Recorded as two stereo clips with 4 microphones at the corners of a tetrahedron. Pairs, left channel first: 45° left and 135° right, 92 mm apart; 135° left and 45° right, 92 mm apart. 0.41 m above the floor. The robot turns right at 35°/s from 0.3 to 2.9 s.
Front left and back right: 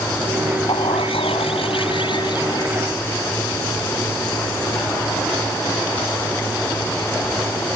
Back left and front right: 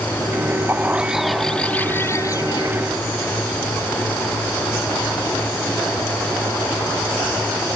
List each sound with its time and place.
0.7 s a bird: 25° left; by 2.7 s 95° left